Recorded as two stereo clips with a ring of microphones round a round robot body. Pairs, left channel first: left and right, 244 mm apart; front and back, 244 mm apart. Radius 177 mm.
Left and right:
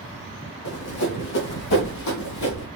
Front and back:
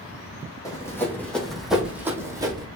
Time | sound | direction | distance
0.7 | running footsteps | 75° left | 2.5 m